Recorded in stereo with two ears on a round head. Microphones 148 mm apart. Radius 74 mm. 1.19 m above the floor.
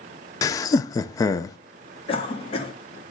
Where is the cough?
35° left (ahead or behind), 2 m.